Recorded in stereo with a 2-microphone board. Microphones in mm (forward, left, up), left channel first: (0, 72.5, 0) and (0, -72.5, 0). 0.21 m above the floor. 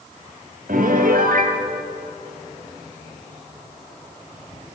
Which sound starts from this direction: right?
A piano, at 0.7 s.